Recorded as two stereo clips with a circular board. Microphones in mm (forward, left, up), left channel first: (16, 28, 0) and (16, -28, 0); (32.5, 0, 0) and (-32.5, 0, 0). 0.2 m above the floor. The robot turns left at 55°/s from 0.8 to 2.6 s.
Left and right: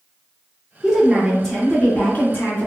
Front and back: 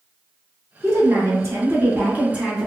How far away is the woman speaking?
About 1.3 m.